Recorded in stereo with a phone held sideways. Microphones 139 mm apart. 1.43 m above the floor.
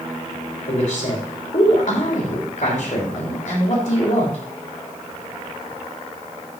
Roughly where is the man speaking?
Left.